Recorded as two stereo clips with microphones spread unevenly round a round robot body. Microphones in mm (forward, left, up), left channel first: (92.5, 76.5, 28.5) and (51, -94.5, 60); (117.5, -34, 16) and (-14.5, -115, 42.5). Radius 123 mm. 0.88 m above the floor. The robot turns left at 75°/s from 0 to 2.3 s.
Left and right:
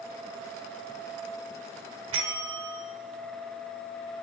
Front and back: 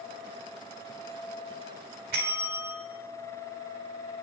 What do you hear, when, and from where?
2.1 s a bell: 135° right, 1.3 m; by 2.8 s 150° right, 1.3 m